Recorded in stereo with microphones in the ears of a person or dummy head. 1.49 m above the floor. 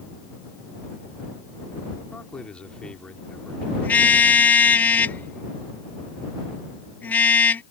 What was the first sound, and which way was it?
A man speaking, 5° left (ahead or behind).